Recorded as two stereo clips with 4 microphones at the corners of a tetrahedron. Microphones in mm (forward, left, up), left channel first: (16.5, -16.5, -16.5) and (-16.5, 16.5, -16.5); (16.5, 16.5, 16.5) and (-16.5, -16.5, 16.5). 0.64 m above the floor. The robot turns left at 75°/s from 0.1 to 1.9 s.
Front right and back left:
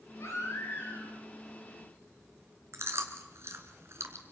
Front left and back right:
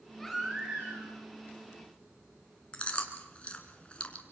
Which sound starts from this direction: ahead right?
A baby crying, at 0.2 s.